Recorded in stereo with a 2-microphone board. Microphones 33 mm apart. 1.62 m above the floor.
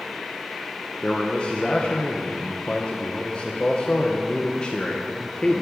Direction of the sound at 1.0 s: 30° left (ahead or behind).